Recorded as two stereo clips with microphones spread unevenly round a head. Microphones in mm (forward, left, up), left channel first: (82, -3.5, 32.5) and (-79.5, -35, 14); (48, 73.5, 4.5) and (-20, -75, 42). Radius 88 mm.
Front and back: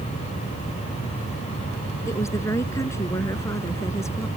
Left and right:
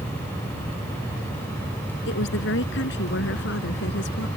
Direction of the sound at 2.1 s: 85° left.